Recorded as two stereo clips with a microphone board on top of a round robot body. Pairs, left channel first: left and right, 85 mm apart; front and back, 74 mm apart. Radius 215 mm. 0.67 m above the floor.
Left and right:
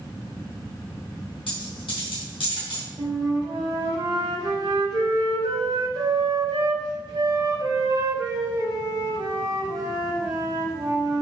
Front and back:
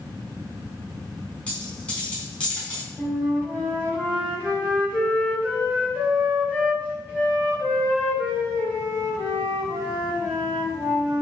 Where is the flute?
120° right, 4.5 m.